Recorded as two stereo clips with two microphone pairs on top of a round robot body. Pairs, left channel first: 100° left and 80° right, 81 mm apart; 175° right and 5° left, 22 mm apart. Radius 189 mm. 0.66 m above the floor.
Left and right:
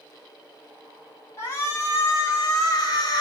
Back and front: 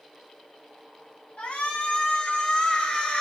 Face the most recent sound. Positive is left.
turn(degrees=140)